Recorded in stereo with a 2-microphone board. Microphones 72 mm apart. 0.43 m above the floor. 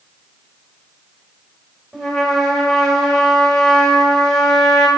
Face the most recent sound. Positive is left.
turn(degrees=0)  # may be behind; listen again after turning